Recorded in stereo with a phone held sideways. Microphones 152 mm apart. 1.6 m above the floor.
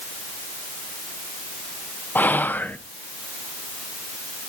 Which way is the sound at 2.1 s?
10° left (ahead or behind).